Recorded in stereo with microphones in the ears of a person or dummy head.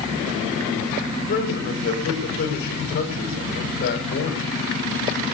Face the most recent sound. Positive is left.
turn(degrees=55)  # may be behind; listen again after turning